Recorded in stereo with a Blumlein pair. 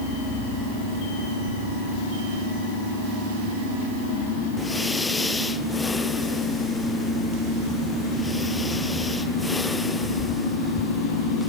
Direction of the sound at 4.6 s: 5° left.